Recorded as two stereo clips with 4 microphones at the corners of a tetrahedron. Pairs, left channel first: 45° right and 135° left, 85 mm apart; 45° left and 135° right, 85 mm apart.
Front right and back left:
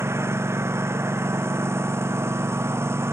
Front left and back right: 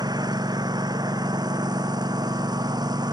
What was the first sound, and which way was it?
A lawn mower, 170° right.